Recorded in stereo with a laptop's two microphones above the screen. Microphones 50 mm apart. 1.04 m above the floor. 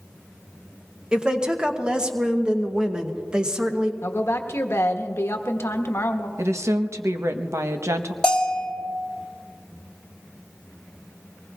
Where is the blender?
I don't hear a blender.